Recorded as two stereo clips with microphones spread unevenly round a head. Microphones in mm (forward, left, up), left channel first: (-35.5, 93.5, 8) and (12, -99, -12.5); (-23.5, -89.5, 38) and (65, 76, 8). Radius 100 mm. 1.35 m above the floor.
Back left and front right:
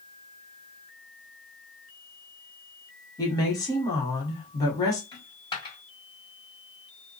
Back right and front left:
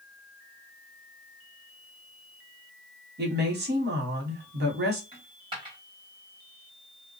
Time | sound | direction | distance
3.2 | a woman speaking | 30° left | 1.2 m
5.1 | a dropped coin | 120° left | 1.2 m